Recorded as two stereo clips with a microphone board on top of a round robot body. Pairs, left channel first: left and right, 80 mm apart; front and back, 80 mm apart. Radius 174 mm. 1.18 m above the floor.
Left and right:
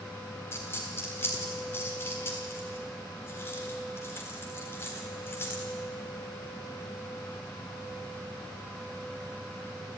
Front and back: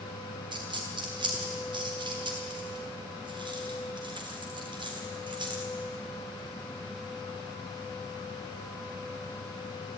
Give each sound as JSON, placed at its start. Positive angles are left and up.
{"t": 0.5, "sound": "a dropped coin", "azimuth_deg": 155, "distance_m": 1.5}